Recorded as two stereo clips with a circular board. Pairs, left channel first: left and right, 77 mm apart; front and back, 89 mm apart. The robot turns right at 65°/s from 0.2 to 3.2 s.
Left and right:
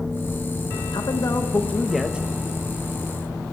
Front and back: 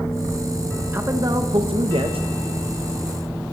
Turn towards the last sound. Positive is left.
turn(degrees=-100)